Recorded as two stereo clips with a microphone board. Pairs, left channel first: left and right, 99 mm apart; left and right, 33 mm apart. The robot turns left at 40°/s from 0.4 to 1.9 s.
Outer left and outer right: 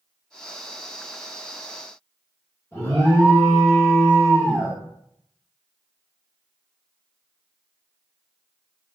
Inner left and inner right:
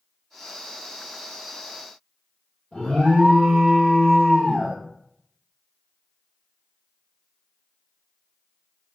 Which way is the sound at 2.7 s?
30° left (ahead or behind).